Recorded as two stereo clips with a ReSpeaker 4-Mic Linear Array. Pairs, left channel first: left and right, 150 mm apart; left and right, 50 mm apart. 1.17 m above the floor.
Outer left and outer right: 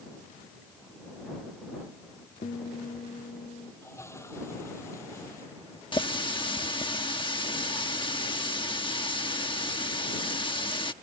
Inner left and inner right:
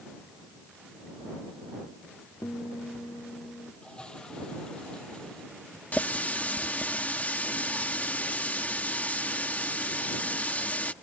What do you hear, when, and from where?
2.4 s a guitar: 70° left (ahead or behind)
3.8 s a toilet flushing: 20° left (ahead or behind)
5.9 s a running tap: 35° left (ahead or behind)